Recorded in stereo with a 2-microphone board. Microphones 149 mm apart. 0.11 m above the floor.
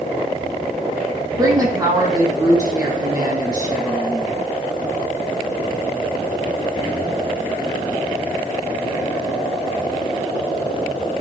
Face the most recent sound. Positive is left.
turn(degrees=-25)  # may be behind; listen again after turning